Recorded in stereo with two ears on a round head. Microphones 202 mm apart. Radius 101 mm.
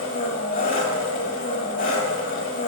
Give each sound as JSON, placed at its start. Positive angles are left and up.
{"t": 0.0, "sound": "an engine running", "side_deg": 35, "distance_m": 2.0}